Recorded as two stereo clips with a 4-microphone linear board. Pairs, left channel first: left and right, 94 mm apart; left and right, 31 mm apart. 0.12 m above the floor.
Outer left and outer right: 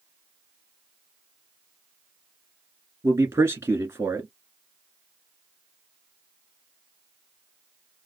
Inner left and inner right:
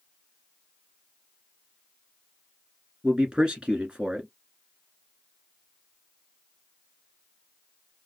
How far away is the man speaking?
About 1.5 m.